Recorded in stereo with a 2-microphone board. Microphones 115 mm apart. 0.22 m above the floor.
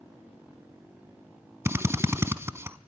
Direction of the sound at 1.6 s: 25° right (ahead or behind).